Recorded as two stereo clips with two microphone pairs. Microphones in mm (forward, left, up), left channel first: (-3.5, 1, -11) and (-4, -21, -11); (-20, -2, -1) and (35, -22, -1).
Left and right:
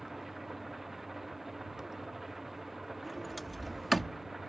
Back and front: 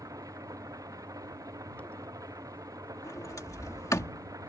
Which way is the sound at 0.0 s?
5° right.